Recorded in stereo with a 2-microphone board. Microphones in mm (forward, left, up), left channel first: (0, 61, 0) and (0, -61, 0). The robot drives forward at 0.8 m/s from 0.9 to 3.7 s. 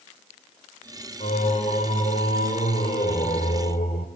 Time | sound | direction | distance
1.2 | singing | 60° left (ahead or behind) | 4 m